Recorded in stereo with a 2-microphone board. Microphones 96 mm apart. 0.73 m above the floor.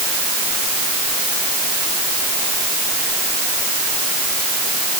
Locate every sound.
Only background noise.